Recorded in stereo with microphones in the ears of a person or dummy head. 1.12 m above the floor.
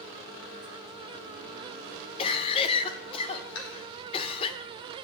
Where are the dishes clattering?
80° left, 3.5 m.